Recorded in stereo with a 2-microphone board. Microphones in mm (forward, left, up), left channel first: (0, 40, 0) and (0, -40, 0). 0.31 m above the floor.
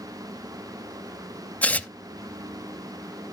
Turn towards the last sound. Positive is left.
turn(degrees=20)  # may be behind; listen again after turning